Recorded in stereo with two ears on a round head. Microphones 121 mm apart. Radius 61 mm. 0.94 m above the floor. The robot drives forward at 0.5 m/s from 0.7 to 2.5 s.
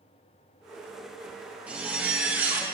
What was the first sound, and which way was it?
A zipper, 10° right (ahead or behind).